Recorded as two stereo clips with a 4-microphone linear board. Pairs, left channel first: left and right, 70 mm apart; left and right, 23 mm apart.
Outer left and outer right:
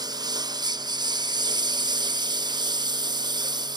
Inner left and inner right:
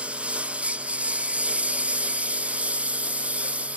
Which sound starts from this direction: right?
A lawn mower, at 0.0 s.